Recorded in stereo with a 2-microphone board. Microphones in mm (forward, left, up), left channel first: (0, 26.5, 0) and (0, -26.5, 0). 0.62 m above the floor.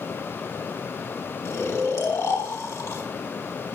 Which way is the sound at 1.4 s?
70° left (ahead or behind).